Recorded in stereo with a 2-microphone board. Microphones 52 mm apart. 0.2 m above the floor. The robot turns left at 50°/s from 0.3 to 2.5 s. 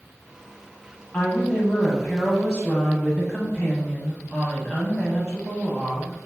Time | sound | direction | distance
1.1 | a woman speaking | 20° left (ahead or behind) | 1.0 m